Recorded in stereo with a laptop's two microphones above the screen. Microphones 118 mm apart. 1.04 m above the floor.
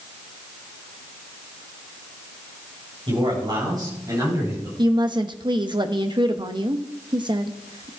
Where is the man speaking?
45° right (ahead or behind), 5 m; by 4.7 s 25° right (ahead or behind), 6 m.